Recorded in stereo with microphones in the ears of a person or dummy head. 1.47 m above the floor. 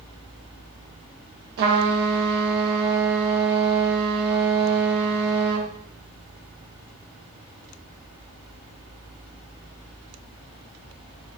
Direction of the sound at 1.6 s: 55° right (ahead or behind).